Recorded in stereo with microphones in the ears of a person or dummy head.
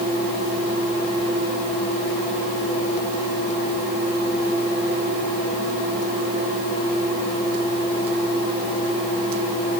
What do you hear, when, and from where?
Only background noise.